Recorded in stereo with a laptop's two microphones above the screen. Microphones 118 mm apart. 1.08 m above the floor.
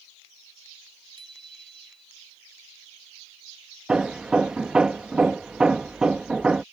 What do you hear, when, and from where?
1.2 s a bicycle bell: 40° right (ahead or behind)
3.9 s hammering: 5° right (ahead or behind)